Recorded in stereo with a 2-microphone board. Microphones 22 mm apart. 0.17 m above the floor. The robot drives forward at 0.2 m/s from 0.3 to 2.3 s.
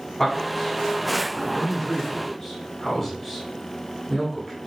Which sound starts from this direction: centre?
A man speaking, at 0.2 s.